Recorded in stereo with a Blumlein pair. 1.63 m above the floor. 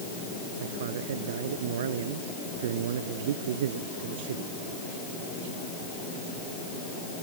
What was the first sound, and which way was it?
A man speaking, 60° right.